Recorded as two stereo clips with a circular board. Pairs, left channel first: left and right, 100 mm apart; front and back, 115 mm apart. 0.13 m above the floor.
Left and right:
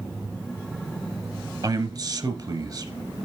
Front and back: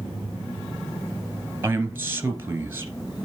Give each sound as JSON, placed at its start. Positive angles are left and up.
{"t": 1.6, "sound": "a man speaking", "azimuth_deg": -115, "distance_m": 1.8}